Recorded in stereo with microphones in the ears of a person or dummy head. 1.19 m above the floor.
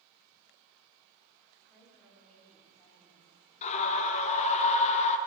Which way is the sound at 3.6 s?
40° left (ahead or behind).